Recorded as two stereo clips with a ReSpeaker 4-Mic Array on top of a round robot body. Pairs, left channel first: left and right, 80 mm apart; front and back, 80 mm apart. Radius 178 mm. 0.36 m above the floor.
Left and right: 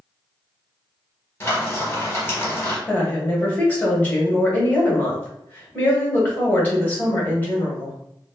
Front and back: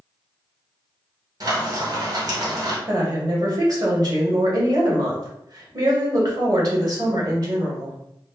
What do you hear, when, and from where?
1.4 s frying: 150° left, 1.7 m
2.9 s a woman speaking: 155° left, 1.7 m